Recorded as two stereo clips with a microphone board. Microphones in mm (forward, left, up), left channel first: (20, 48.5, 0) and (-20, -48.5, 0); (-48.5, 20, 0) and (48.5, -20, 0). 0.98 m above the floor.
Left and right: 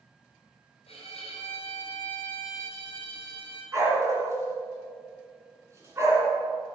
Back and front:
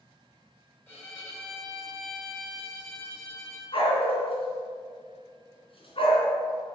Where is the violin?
85° left, 3.5 m.